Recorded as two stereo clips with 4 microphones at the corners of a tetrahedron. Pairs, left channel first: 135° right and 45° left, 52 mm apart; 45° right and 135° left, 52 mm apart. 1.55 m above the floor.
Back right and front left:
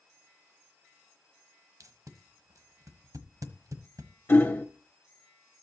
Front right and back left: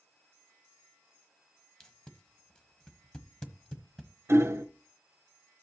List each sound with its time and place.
1.8 s tape being pulled: 30° left, 1.1 m
4.3 s hammering: 175° left, 1.0 m